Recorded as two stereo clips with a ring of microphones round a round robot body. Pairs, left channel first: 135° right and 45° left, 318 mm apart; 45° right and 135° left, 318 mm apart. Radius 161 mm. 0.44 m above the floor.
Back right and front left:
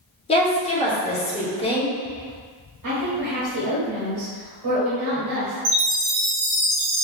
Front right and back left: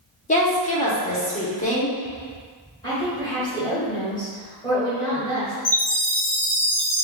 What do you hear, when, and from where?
0.3 s a woman speaking: 85° right, 0.8 m
2.8 s a woman speaking: 30° left, 1.9 m
5.7 s a chime: 40° left, 1.2 m